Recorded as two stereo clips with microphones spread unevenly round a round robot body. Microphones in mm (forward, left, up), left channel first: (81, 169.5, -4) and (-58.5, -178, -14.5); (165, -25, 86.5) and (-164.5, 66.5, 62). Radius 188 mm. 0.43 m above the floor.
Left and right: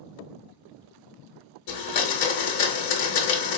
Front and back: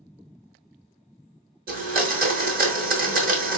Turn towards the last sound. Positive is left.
turn(degrees=100)